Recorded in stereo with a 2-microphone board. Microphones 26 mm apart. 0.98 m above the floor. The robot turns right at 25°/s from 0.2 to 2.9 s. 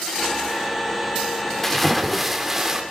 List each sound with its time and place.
1.6 s a splash: 10° left (ahead or behind), 2.5 m; by 2.8 s 15° right (ahead or behind), 2.5 m